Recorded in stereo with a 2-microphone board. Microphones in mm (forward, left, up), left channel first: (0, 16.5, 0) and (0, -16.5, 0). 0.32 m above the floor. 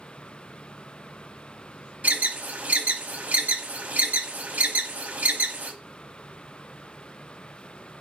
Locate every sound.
2.0 s an alarm: 55° right (ahead or behind), 1.2 m